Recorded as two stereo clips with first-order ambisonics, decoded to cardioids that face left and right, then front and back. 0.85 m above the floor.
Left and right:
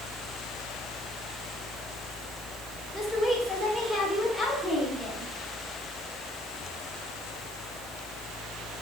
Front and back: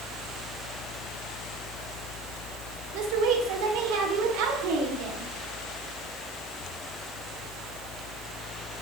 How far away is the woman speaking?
About 2.5 m.